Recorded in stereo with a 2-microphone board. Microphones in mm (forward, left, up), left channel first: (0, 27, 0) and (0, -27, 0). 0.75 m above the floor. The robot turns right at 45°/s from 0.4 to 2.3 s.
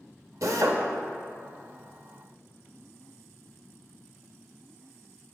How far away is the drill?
About 0.8 m.